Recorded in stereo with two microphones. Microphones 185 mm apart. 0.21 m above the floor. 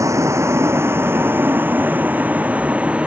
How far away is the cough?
I don't hear a cough.